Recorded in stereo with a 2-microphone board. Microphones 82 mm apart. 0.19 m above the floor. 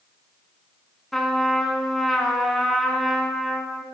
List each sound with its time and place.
1.1 s a trumpet: 5° left (ahead or behind), 0.5 m